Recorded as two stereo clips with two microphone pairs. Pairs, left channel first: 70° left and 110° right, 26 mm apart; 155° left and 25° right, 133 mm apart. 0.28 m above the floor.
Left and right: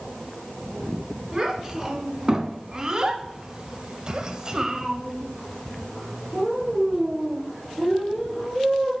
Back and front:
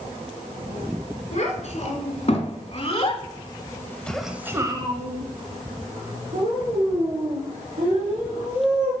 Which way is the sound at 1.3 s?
175° left.